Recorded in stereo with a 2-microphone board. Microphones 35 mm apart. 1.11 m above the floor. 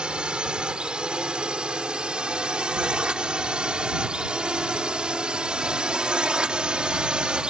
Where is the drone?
25° right (ahead or behind).